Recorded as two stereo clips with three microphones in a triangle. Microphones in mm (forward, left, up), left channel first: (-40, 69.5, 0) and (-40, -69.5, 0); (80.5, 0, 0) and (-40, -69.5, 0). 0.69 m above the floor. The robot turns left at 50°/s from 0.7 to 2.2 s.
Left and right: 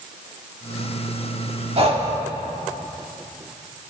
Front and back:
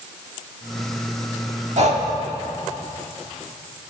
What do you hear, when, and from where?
1.8 s breathing: 125° right, 1.4 m; by 2.1 s 140° right, 1.4 m